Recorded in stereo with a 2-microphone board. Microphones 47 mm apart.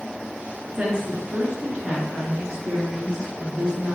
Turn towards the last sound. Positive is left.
turn(degrees=-20)  # may be behind; listen again after turning